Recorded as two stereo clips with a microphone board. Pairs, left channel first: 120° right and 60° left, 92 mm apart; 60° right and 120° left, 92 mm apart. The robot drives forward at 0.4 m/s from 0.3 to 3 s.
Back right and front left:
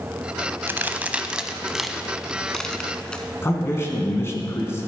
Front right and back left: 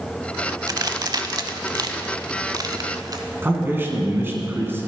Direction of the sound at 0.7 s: 115° left.